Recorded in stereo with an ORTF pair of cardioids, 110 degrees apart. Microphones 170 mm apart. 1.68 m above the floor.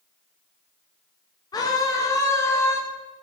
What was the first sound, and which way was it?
A scream, 25° left.